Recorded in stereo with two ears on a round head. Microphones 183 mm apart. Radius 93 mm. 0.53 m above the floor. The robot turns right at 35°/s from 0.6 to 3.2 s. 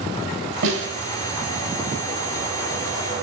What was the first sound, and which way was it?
A snare drum, 70° right (ahead or behind).